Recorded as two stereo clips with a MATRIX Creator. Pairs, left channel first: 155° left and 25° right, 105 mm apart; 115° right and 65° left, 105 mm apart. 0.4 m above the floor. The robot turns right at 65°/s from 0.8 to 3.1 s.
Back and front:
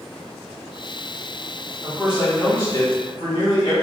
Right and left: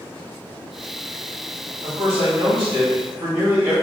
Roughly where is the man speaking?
Ahead left.